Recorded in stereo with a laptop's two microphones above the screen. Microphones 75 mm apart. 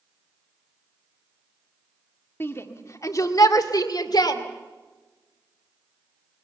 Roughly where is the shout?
Left.